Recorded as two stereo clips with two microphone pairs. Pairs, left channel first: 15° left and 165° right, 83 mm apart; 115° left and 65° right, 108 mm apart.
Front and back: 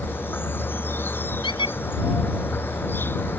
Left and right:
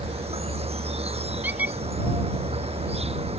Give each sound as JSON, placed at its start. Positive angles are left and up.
{"t": 0.0, "sound": "an insect", "azimuth_deg": -50}
{"t": 1.4, "sound": "a squeak", "azimuth_deg": 10}